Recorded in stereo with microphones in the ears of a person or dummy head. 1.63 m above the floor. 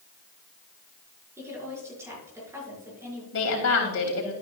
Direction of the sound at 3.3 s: 80° left.